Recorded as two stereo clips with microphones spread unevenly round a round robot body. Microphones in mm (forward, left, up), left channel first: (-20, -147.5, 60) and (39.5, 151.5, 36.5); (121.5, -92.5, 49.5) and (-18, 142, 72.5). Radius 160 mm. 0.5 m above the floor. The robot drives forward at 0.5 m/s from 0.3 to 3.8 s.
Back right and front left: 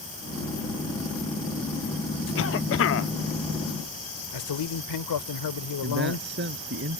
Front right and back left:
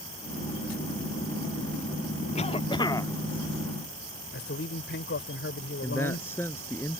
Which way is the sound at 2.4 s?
100° right.